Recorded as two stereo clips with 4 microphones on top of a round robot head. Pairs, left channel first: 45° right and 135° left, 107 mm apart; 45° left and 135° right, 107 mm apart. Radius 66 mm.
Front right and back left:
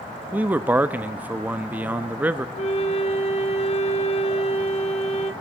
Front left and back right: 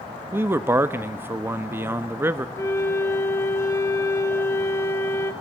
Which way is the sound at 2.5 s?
20° right.